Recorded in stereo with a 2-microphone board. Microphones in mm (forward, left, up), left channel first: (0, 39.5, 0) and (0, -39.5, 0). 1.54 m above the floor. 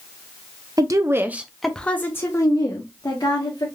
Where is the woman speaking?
50° right (ahead or behind), 0.6 m; by 3.7 s 55° left (ahead or behind), 1.2 m.